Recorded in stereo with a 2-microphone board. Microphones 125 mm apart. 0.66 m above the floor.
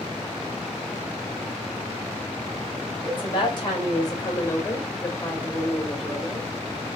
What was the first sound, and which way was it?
A woman speaking, 45° left (ahead or behind).